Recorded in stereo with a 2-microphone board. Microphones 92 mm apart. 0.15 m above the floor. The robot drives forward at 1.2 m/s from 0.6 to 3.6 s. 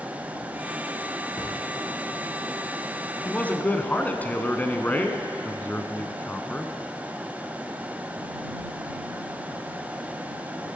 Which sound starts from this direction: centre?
A man speaking, at 3.2 s.